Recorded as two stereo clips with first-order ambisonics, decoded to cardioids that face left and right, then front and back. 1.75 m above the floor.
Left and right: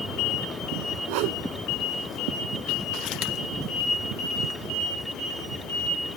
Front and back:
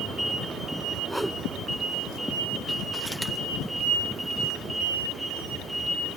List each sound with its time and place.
1.1 s a whoosh: 90° right